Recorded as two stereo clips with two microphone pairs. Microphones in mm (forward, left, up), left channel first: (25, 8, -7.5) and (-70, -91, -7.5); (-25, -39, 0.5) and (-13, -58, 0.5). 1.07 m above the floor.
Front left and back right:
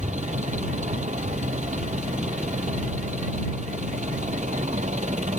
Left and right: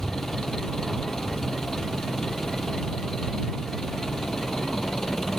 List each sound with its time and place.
0.0 s an engine running: 165° right